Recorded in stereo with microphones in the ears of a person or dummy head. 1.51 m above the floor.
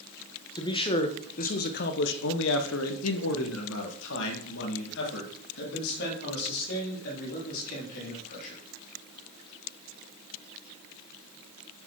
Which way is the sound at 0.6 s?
25° left (ahead or behind).